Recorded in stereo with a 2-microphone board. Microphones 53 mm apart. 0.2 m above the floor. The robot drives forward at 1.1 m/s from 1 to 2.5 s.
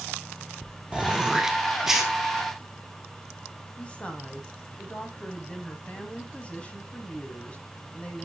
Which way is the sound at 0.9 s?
20° right (ahead or behind).